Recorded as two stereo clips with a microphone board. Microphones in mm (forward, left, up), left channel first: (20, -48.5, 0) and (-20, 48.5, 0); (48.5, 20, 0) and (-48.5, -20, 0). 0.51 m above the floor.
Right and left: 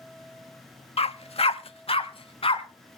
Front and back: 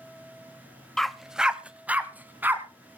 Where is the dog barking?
60° right, 0.5 m; by 2.6 s 85° right, 1.6 m.